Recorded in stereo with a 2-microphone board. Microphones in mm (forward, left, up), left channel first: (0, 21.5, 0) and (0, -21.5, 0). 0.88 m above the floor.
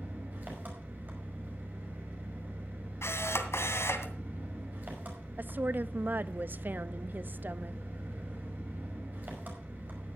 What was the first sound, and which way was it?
An engine running, 45° right (ahead or behind).